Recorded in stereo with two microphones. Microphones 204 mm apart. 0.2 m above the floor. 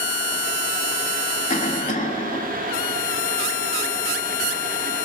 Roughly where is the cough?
Left.